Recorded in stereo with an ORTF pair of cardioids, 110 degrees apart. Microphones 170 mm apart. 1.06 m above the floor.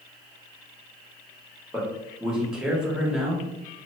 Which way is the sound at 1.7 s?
5° right.